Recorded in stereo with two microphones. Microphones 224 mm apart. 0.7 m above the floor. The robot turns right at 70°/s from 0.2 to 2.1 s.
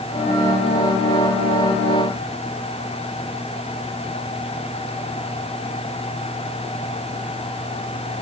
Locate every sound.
Only background noise.